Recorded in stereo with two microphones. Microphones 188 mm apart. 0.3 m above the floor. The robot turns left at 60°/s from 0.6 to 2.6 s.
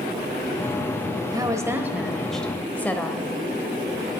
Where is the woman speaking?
20° right (ahead or behind), 0.9 m; by 3.3 s 10° left (ahead or behind), 0.9 m.